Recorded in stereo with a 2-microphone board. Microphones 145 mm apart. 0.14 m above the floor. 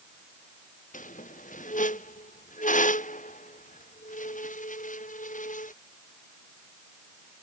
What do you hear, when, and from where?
0.9 s a squeak: 60° left (ahead or behind)